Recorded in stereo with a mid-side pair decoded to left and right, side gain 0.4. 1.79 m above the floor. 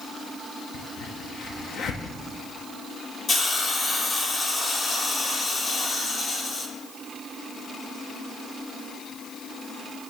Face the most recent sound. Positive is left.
turn(degrees=50)